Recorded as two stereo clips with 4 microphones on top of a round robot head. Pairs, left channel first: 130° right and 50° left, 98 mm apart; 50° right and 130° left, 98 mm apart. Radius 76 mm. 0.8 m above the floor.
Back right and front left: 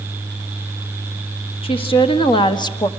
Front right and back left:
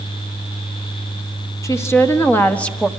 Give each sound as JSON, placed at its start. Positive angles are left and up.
{"t": 1.6, "sound": "a woman speaking", "azimuth_deg": -110, "distance_m": 2.0}